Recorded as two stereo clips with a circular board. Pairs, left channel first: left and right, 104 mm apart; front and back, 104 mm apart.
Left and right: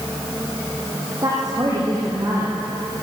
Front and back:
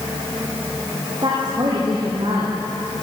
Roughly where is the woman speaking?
Behind right.